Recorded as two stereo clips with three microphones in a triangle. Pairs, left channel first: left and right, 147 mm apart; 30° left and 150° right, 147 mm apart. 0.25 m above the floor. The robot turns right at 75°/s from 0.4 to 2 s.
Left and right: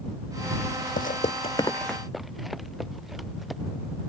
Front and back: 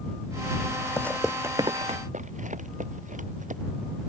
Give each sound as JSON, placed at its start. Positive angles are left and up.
{"t": 1.0, "sound": "footsteps", "azimuth_deg": 100}